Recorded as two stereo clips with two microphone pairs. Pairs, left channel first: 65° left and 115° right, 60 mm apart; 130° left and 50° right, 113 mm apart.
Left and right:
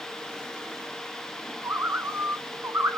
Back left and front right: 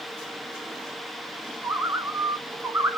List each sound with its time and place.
1.6 s a bird: 110° right, 0.6 m